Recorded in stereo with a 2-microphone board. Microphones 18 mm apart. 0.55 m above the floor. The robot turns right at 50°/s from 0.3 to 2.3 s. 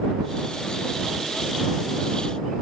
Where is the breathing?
No breathing in this recording.